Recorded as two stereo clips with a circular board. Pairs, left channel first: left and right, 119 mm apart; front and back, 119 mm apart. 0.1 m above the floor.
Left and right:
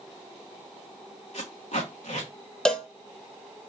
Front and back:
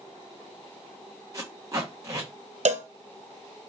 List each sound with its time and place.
1.3 s tape being pulled: 115° left, 1.7 m
2.6 s a cowbell: 175° left, 0.6 m